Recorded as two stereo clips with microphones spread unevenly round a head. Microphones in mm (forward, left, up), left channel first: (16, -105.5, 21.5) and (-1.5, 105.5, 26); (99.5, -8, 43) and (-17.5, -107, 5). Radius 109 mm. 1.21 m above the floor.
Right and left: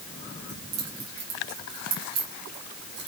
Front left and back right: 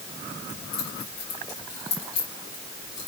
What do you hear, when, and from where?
0.5 s keys jangling: 95° left, 5.5 m; by 3.1 s 70° left, 5 m